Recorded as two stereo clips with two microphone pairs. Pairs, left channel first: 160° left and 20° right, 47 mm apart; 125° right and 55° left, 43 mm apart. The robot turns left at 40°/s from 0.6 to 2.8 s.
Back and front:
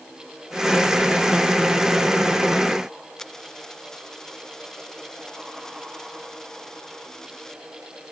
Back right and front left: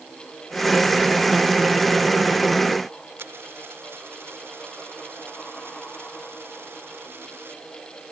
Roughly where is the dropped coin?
Left.